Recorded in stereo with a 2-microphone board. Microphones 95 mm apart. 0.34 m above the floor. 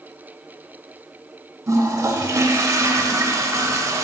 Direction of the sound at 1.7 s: 35° right (ahead or behind).